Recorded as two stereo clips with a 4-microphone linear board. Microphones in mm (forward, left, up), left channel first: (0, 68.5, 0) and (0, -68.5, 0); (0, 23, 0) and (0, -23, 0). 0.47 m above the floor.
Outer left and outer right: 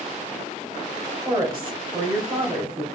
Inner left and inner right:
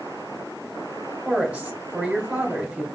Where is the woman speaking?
40° right (ahead or behind), 1.5 m.